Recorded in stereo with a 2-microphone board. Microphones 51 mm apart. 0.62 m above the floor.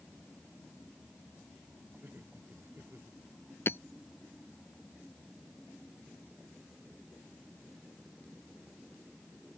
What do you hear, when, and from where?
2.0 s laughter: 45° right (ahead or behind)
3.7 s hammering: 50° left (ahead or behind)